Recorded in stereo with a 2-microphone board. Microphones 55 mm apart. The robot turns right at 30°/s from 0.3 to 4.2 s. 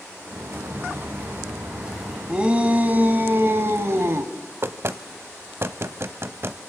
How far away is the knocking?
About 0.9 m.